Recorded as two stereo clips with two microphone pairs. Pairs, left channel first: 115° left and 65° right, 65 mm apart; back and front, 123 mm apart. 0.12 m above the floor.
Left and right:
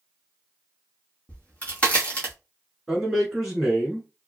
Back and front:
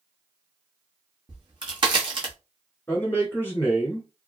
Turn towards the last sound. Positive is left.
turn(degrees=-150)